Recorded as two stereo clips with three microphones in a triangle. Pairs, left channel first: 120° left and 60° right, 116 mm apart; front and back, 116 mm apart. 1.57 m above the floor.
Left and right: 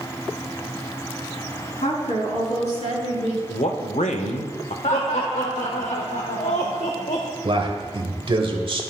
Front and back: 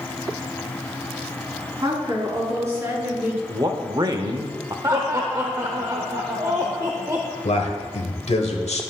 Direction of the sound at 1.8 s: 125° left.